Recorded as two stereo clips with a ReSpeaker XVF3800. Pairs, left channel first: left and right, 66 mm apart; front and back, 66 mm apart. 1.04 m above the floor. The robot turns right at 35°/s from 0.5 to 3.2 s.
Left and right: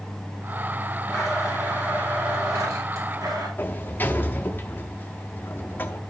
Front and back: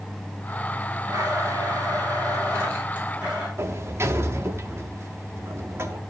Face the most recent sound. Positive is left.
turn(degrees=145)